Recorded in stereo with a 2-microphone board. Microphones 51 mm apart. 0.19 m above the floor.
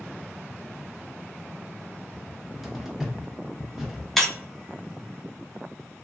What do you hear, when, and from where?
2.1 s a cupboard door: 5° right (ahead or behind), 0.7 m
4.2 s breaking glass: 5° left (ahead or behind), 0.7 m